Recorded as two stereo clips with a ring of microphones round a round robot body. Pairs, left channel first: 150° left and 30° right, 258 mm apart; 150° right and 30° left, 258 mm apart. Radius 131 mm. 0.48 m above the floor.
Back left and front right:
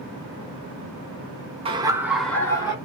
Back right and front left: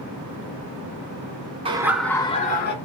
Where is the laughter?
Straight ahead, 0.7 m; by 2.8 s 145° right, 0.8 m.